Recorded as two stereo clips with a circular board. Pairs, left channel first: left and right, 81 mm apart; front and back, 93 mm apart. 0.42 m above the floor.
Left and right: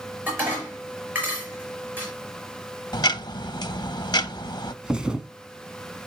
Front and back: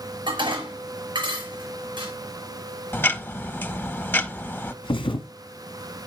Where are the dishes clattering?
155° right, 5 m.